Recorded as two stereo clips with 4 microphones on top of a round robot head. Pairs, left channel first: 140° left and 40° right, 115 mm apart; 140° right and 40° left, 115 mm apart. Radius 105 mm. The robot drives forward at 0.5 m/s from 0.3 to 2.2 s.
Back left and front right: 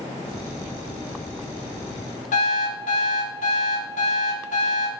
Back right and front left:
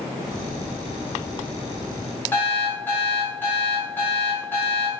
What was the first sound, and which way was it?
An alarm clock, 145° left.